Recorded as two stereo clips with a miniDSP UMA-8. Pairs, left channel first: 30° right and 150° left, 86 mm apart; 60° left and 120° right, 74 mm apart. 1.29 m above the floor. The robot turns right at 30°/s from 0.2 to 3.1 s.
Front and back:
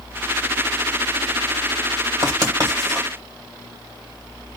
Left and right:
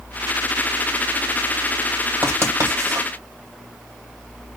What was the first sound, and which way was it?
Writing, 175° right.